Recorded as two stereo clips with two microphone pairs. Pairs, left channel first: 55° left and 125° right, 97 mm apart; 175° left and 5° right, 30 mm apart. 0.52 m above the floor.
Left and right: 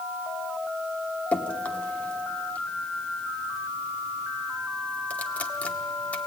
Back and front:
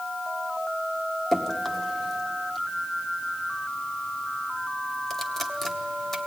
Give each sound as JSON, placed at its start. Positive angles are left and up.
{"t": 1.3, "sound": "dripping", "azimuth_deg": 115, "distance_m": 1.2}